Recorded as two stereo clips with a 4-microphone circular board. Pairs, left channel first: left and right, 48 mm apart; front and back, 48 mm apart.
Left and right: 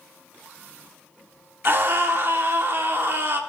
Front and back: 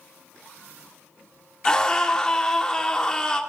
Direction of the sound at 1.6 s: 70° right.